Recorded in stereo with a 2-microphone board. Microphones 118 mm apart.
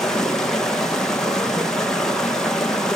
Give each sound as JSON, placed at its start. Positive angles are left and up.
{"t": 0.0, "sound": "running water", "side_deg": 5, "distance_m": 2.5}